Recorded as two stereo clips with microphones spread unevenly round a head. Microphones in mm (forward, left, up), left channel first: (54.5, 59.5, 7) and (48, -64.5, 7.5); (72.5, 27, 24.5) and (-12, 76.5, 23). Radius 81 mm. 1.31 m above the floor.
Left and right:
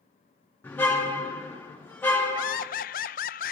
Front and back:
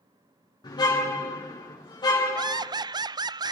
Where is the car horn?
15° left, 6 m.